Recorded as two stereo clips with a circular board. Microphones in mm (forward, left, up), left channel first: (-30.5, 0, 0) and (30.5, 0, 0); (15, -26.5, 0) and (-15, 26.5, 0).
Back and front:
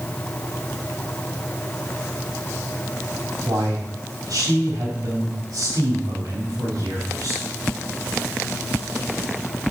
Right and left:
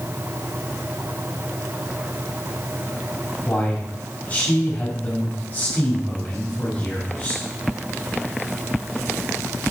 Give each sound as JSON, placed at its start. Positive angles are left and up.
{"t": 3.5, "sound": "a man speaking", "azimuth_deg": 5, "distance_m": 5.0}